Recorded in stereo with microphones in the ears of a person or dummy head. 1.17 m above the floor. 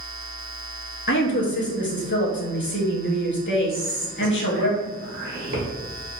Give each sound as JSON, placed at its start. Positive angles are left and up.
{"t": 1.1, "sound": "a woman speaking", "side_deg": 50, "distance_m": 0.7}
{"t": 3.7, "sound": "whispering", "side_deg": -60, "distance_m": 1.6}